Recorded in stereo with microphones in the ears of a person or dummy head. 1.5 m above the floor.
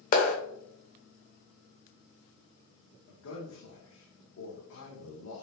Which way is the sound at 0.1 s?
40° left (ahead or behind).